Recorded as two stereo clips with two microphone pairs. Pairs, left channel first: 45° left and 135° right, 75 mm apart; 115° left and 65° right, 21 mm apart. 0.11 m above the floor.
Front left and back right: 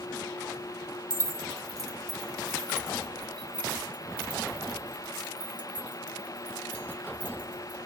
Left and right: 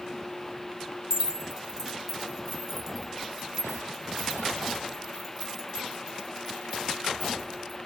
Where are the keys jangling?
115° right, 1.3 m; by 7.8 s 160° right, 4.5 m.